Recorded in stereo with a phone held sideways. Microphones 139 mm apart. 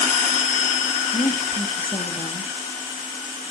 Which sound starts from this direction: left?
A woman speaking, at 1.1 s.